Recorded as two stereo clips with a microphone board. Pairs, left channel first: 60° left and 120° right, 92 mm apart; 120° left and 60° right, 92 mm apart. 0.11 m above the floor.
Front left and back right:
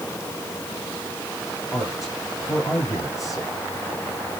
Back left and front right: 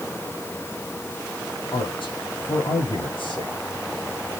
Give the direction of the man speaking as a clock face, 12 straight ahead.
8 o'clock.